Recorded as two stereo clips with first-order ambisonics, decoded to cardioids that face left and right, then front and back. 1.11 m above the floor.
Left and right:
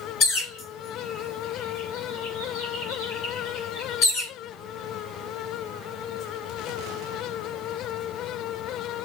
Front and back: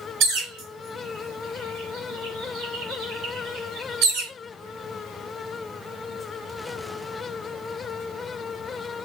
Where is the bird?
140° left, 2 m.